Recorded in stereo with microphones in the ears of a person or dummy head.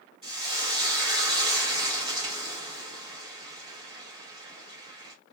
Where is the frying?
30° right (ahead or behind), 1.3 m.